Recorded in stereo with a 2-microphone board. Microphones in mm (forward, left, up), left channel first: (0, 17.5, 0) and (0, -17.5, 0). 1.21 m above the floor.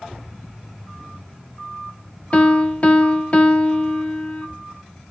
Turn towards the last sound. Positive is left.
turn(degrees=40)  # may be behind; listen again after turning